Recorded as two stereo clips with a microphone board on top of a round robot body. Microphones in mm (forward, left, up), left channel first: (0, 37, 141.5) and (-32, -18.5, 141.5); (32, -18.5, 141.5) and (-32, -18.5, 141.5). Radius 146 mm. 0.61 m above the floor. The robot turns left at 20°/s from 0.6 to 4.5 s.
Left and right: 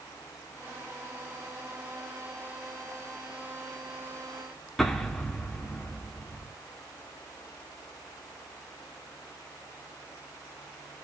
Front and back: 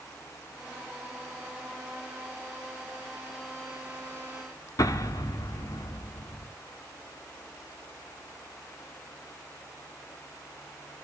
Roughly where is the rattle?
I don't hear a rattle.